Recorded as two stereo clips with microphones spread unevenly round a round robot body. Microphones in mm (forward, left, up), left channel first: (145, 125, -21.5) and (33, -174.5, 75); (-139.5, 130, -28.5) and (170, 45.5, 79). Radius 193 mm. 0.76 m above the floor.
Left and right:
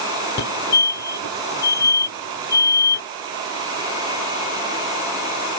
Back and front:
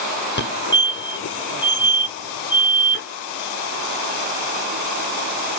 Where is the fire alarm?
120° left.